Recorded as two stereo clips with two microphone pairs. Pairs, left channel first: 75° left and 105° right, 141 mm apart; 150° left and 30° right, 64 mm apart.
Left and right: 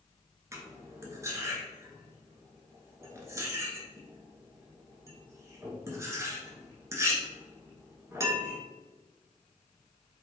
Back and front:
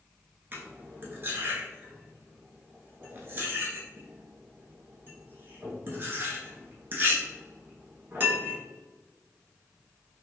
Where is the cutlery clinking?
55° right, 0.8 m.